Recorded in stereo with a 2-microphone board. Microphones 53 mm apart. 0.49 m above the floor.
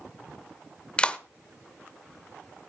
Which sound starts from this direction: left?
A clap, at 1.0 s.